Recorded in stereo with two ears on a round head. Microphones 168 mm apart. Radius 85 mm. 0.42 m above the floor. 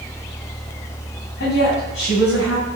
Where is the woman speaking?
70° left (ahead or behind), 3.5 m; by 2.7 s 75° left (ahead or behind), 4 m.